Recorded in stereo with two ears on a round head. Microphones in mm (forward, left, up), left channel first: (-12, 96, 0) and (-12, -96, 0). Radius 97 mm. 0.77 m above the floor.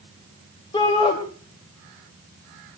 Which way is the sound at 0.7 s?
25° left (ahead or behind).